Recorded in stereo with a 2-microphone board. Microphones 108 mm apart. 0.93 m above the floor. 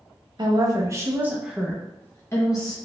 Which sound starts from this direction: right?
A woman speaking, at 0.4 s.